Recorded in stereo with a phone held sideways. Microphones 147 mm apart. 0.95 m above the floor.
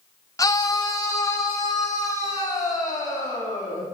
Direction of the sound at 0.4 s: 20° left (ahead or behind).